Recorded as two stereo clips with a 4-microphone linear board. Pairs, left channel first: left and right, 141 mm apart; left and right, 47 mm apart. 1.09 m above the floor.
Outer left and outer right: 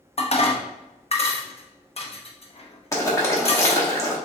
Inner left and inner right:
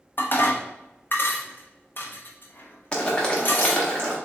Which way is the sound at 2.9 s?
20° left (ahead or behind).